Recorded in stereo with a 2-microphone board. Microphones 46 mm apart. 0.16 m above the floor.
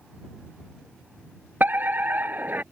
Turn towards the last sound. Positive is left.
turn(degrees=-40)  # may be behind; listen again after turning